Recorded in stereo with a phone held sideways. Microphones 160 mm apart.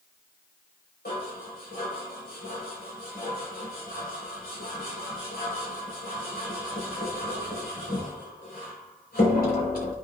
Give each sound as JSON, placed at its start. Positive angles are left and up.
{"t": 1.1, "sound": "dishes clattering", "side_deg": 85, "distance_m": 4.0}